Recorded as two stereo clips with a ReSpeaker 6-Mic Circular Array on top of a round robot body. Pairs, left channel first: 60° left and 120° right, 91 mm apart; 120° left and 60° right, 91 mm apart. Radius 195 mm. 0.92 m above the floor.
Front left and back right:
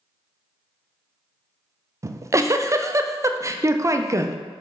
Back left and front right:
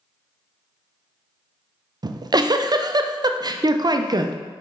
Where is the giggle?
75° right, 0.5 m.